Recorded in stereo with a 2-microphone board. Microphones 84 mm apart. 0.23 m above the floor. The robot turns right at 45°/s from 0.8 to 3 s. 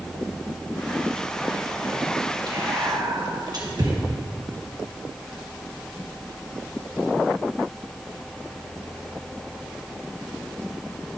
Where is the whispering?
50° right (ahead or behind), 2.5 m; by 3.9 s 55° right (ahead or behind), 2.5 m.